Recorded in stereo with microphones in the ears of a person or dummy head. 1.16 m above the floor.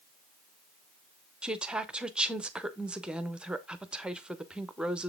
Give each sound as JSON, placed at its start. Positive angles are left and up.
{"t": 1.4, "sound": "a woman speaking", "side_deg": -10, "distance_m": 0.5}